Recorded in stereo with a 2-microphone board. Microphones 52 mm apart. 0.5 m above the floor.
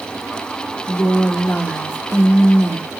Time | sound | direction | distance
0.9 | a woman speaking | 30° left (ahead or behind) | 0.8 m